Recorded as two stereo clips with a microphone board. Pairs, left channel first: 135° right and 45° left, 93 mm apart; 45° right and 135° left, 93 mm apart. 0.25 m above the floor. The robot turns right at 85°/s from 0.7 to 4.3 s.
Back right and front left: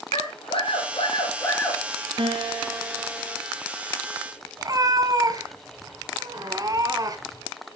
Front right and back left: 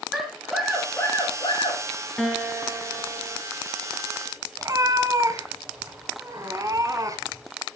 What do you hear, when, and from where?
0.1 s a scream: 140° right, 4 m; by 1.8 s 45° right, 4 m
2.2 s a guitar: 40° left, 1.7 m; by 3.4 s 145° left, 1.7 m
4.6 s a cat meowing: 90° left, 1.4 m